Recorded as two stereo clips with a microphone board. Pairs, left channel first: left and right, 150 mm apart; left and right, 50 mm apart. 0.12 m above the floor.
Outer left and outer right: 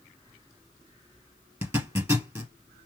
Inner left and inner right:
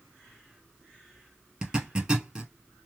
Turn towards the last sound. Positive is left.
turn(degrees=-15)  # may be behind; listen again after turning